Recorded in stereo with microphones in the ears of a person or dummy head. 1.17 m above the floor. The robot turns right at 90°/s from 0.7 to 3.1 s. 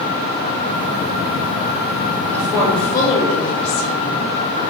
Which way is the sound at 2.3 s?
10° right.